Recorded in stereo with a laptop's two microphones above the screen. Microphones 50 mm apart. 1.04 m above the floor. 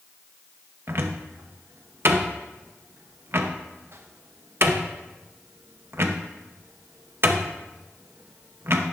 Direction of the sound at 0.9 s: 55° right (ahead or behind).